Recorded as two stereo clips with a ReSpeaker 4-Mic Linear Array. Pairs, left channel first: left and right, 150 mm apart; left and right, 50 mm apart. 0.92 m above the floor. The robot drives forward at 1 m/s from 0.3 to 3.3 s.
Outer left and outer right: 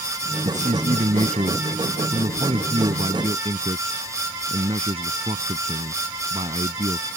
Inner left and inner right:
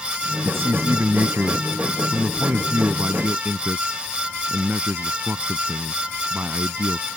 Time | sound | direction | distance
0.4 | a man speaking | 55° right (ahead or behind) | ?